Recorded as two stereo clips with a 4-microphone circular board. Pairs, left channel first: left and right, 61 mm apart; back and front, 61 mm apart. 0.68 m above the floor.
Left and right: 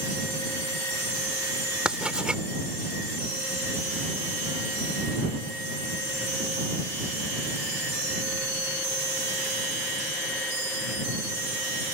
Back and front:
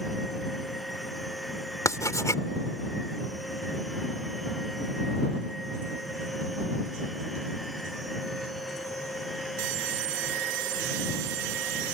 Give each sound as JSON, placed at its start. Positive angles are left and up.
{"t": 1.9, "sound": "writing", "azimuth_deg": -165}